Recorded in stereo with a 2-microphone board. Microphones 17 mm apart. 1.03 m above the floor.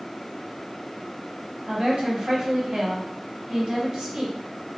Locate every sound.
1.7 s a woman speaking: 50° right (ahead or behind), 0.9 m